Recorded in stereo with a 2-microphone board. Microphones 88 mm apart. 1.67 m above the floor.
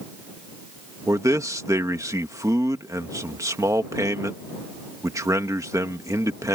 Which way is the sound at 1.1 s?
35° right (ahead or behind).